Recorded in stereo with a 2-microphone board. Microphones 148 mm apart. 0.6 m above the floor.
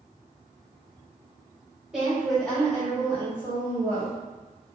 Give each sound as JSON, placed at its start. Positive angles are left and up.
{"t": 1.9, "sound": "a woman speaking", "side_deg": -5, "distance_m": 1.6}